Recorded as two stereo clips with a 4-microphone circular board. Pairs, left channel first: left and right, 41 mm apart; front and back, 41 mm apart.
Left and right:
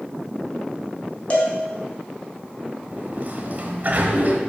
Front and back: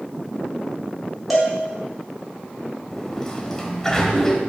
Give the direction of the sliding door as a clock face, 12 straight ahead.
3 o'clock.